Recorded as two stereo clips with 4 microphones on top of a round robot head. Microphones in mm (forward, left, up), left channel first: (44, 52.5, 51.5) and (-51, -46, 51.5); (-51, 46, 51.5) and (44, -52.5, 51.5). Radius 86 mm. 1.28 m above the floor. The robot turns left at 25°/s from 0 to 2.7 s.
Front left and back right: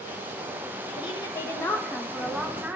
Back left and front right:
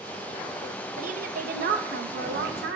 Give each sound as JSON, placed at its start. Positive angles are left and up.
{"t": 1.0, "sound": "a woman speaking", "azimuth_deg": -10, "distance_m": 1.0}